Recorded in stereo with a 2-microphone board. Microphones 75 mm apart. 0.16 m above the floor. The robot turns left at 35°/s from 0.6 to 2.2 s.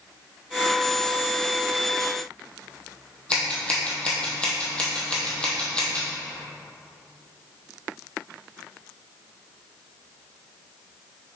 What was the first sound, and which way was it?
Scissors, 15° left (ahead or behind).